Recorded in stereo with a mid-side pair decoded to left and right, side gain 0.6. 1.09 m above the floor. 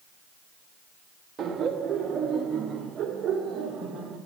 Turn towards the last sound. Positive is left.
turn(degrees=-40)